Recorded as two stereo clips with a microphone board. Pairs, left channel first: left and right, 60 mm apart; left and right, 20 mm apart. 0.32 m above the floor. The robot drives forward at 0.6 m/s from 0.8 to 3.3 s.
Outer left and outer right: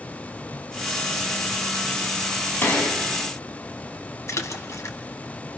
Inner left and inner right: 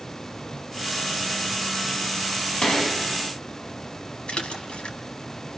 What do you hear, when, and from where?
2.6 s a gunshot: 40° left (ahead or behind), 3.5 m; by 3.0 s 35° left (ahead or behind), 3.5 m
4.3 s a splash: 60° left (ahead or behind), 1.8 m